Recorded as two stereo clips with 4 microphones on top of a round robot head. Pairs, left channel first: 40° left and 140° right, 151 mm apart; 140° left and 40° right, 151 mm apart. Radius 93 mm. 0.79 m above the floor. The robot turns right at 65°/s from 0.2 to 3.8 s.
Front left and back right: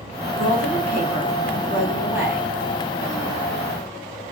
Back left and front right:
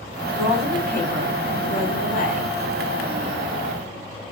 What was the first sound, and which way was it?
A woman speaking, 25° left.